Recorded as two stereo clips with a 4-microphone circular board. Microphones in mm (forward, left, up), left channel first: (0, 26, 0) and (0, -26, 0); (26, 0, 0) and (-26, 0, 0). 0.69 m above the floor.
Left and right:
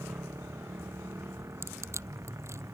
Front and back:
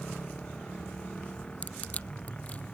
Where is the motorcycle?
70° right.